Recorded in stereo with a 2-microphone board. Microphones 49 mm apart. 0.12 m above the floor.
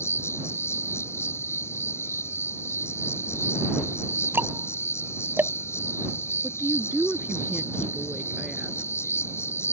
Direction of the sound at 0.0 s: 60° left (ahead or behind).